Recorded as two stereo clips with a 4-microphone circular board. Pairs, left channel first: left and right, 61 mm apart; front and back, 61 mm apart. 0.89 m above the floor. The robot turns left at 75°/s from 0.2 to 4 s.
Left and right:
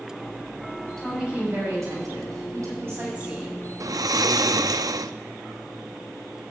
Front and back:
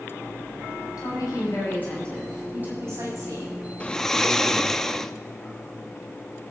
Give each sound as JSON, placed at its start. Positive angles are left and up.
{"t": 1.0, "sound": "a woman speaking", "azimuth_deg": 5, "distance_m": 7.5}
{"t": 3.8, "sound": "snoring", "azimuth_deg": -65, "distance_m": 0.5}